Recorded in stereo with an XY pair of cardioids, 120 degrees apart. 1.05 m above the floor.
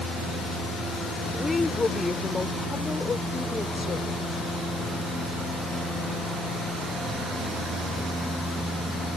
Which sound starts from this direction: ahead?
A woman speaking, at 1.3 s.